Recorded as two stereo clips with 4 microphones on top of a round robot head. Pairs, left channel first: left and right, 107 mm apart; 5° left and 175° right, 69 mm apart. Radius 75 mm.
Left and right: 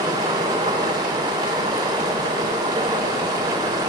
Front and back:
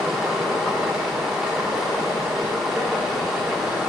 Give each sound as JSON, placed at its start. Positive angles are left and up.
{"t": 0.0, "sound": "running water", "azimuth_deg": -100, "distance_m": 1.3}